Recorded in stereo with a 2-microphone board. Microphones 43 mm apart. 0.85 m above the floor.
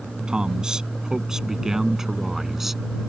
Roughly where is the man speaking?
Right.